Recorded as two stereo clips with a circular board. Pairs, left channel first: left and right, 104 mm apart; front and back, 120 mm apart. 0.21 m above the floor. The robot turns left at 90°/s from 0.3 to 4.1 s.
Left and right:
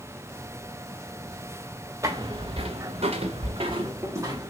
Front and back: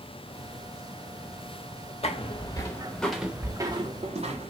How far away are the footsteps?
About 1.1 m.